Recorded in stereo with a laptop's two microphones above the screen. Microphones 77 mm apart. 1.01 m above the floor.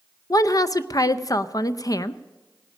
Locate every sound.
0.3 s a woman speaking: 50° left (ahead or behind), 0.5 m